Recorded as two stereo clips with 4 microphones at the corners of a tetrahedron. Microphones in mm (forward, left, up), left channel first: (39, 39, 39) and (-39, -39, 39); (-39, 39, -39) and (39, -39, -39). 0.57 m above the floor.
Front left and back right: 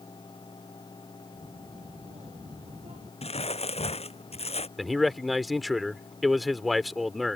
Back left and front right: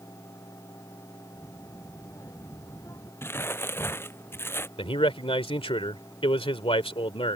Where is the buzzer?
No buzzer in this recording.